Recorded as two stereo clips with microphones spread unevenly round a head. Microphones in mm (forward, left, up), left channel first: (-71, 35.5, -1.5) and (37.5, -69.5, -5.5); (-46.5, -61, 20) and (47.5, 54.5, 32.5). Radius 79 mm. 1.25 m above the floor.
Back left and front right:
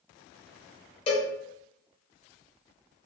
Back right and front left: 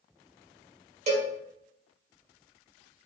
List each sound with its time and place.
1.1 s a cowbell: 90° left, 0.7 m